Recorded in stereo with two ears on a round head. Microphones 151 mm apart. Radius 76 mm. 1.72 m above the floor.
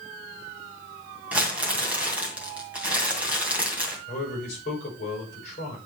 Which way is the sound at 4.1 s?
40° left (ahead or behind).